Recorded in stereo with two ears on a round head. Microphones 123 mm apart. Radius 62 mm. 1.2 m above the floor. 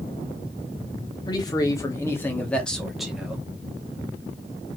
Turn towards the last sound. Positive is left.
turn(degrees=-10)  # may be behind; listen again after turning